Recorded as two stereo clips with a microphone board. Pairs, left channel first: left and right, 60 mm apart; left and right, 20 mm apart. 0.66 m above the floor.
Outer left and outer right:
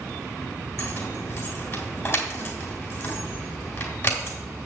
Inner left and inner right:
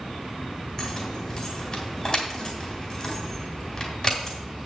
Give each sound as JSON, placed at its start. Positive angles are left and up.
{"t": 0.8, "sound": "keys jangling", "side_deg": 40, "distance_m": 2.5}